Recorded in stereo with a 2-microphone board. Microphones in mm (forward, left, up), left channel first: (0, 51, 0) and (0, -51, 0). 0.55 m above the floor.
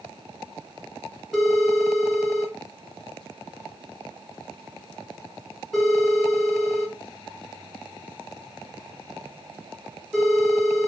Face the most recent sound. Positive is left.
turn(degrees=0)  # may be behind; listen again after turning